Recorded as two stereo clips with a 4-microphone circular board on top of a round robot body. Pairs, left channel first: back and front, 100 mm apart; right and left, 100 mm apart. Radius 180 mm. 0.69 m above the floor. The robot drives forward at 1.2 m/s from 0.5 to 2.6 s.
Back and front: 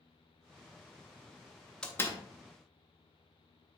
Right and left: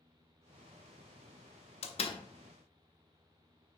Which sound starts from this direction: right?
A door slam, at 1.8 s.